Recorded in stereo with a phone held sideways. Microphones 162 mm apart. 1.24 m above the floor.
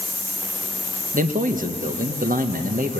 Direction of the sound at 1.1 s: 55° right (ahead or behind).